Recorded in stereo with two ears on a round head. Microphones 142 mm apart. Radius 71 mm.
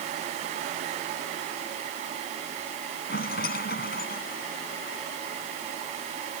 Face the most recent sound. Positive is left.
turn(degrees=70)  # may be behind; listen again after turning